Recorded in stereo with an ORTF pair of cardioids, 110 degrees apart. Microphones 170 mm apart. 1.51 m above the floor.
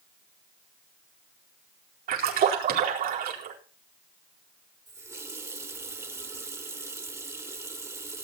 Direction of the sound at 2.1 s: 60° right.